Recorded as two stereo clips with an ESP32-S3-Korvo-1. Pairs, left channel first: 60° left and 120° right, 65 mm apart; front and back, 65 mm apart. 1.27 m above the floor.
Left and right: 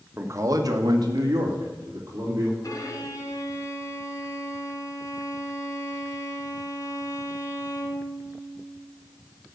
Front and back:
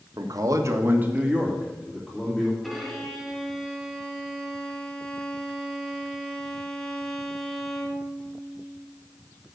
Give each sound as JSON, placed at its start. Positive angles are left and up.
{"t": 0.2, "sound": "a man speaking", "azimuth_deg": -170, "distance_m": 1.5}
{"t": 2.6, "sound": "a violin", "azimuth_deg": 90, "distance_m": 1.8}